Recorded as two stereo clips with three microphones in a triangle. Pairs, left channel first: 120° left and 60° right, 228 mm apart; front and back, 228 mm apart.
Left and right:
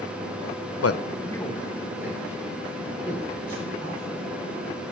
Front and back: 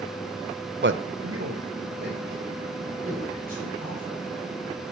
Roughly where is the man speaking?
Behind left.